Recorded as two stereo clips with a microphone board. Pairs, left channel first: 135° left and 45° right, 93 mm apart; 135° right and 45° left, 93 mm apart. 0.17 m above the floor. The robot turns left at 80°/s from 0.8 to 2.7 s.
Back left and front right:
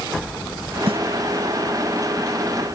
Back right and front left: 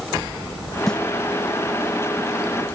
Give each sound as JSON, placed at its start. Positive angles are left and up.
{"t": 0.9, "sound": "a snare drum", "azimuth_deg": -50}